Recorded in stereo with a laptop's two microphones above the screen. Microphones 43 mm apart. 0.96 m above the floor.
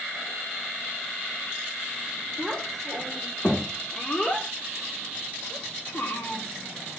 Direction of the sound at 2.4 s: 5° left (ahead or behind).